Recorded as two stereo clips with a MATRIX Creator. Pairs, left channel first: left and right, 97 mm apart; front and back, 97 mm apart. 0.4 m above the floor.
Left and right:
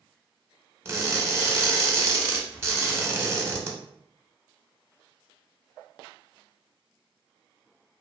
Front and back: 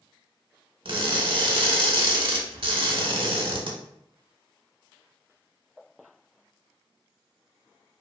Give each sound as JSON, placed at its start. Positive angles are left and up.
{"t": 0.8, "sound": "crushing", "azimuth_deg": -150, "distance_m": 0.6}